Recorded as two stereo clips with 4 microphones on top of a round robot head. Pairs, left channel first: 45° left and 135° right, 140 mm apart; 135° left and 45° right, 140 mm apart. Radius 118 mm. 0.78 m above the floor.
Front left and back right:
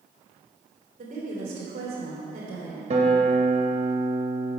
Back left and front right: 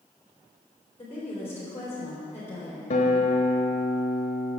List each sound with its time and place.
1.0 s a woman speaking: 150° right, 3 m
2.9 s a guitar: straight behind, 1.0 m